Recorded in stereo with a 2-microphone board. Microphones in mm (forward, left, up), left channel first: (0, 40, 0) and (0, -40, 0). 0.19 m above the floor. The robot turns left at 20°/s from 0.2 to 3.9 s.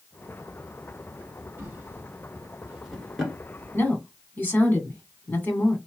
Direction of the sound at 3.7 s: 25° left (ahead or behind).